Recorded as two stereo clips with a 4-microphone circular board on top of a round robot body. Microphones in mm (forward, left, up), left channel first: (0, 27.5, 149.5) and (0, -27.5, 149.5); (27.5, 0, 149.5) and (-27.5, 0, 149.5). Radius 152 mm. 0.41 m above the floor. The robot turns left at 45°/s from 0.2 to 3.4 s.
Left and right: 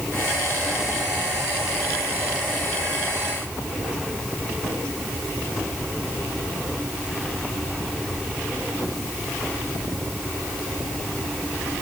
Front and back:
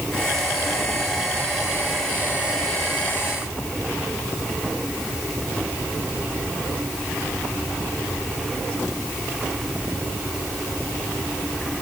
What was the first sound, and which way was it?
Only background noise.